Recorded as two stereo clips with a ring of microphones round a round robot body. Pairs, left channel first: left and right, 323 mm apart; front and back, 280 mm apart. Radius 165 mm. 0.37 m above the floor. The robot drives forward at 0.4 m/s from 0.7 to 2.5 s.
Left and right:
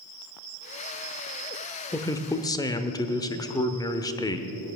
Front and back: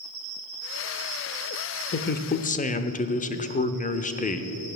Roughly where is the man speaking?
Ahead.